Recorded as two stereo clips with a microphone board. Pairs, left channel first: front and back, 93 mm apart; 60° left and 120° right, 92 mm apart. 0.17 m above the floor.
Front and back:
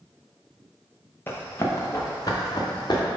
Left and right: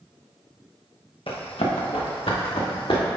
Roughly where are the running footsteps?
Ahead left.